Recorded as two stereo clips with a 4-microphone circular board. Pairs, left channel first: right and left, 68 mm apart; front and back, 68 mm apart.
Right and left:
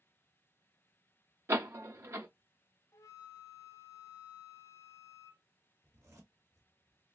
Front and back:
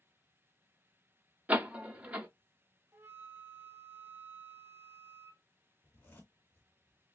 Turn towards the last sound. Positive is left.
turn(degrees=55)